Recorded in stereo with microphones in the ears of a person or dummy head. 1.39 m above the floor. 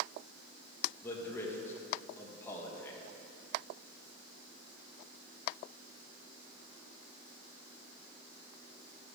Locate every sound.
1.0 s a man speaking: 10° left (ahead or behind), 1.7 m